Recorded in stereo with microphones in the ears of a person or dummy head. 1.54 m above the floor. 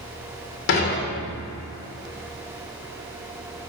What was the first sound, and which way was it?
Dishes clattering, 55° left (ahead or behind).